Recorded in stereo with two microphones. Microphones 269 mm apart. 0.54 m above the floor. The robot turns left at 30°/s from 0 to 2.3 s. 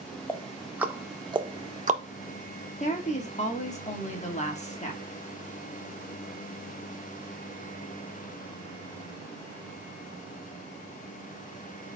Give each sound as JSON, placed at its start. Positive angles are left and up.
{"t": 0.3, "sound": "ticking", "side_deg": 5, "distance_m": 0.8}
{"t": 2.8, "sound": "a woman speaking", "side_deg": 25, "distance_m": 1.0}